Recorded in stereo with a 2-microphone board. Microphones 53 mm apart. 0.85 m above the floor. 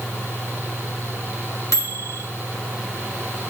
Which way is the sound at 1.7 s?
65° left (ahead or behind).